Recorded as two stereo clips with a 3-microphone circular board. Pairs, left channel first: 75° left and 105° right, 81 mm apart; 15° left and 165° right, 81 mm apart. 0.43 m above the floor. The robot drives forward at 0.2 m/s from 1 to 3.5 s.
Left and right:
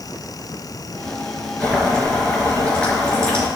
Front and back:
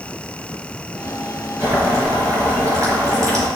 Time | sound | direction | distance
1.6 | boiling | 145° left | 4 m